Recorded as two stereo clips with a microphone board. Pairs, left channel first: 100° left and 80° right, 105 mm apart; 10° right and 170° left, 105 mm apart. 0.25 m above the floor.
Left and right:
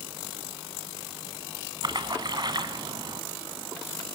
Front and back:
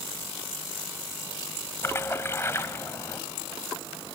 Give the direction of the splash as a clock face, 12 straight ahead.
2 o'clock.